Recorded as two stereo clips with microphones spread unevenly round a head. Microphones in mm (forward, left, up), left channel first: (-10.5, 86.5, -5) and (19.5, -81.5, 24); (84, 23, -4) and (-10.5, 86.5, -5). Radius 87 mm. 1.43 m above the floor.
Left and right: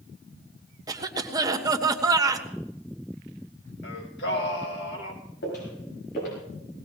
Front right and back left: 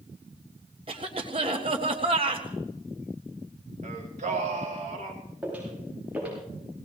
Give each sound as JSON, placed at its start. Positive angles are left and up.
{"t": 0.9, "sound": "a cough", "azimuth_deg": -150, "distance_m": 1.6}
{"t": 3.8, "sound": "singing", "azimuth_deg": 130, "distance_m": 2.5}
{"t": 5.4, "sound": "footsteps", "azimuth_deg": 70, "distance_m": 8.0}